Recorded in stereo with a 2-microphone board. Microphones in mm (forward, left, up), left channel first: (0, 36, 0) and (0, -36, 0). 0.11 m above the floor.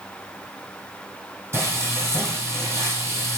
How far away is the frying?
About 1.8 m.